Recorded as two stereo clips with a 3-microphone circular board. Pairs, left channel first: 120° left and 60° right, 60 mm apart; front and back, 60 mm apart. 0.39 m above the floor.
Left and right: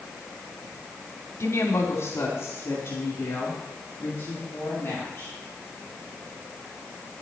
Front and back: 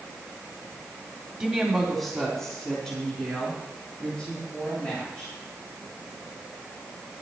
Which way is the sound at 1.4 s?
100° left.